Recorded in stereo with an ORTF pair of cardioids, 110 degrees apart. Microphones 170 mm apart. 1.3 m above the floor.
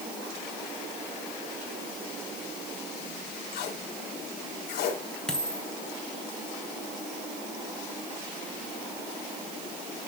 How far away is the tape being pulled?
About 4.5 m.